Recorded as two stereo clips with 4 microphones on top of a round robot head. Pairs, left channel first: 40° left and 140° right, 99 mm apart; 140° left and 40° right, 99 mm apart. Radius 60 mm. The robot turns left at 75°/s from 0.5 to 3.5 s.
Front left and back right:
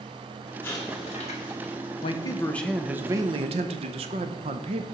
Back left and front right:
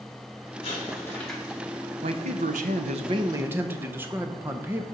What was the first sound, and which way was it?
An explosion, 105° left.